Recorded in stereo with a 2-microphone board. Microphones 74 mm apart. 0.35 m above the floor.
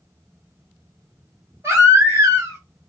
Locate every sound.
1.6 s a baby crying: 40° right (ahead or behind), 1.5 m